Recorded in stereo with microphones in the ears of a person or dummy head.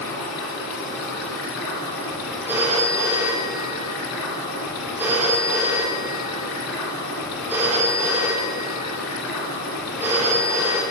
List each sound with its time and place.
0.0 s running water: 75° left (ahead or behind), 2 m
2.5 s a phone ringing: 10° right (ahead or behind), 1.1 m